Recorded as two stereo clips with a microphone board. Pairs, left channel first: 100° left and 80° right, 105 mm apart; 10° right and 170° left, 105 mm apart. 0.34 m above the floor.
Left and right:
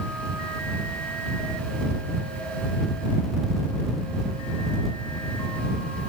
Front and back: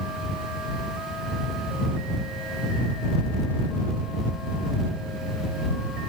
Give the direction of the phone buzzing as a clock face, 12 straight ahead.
I don't hear a phone buzzing.